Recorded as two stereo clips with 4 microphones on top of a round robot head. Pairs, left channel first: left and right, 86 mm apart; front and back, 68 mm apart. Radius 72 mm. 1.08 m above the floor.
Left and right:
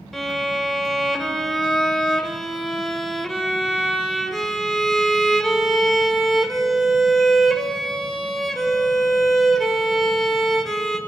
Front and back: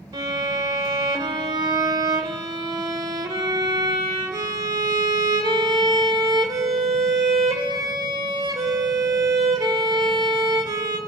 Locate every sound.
0.1 s a violin: straight behind, 1.1 m